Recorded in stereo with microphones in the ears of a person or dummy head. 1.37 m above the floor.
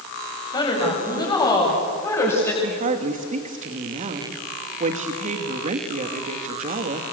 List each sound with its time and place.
0.5 s a woman speaking: 30° left (ahead or behind), 7.5 m; by 2.5 s 15° left (ahead or behind), 7 m
2.6 s a woman speaking: 40° right (ahead or behind), 2 m